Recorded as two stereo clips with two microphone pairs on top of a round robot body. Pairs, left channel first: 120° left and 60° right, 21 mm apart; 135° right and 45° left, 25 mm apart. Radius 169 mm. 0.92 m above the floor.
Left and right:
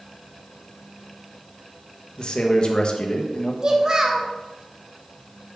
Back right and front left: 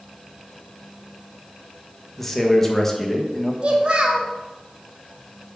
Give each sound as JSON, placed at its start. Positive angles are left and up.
{"t": 2.2, "sound": "a man speaking", "azimuth_deg": 155, "distance_m": 1.5}
{"t": 3.6, "sound": "a child speaking", "azimuth_deg": 0, "distance_m": 1.3}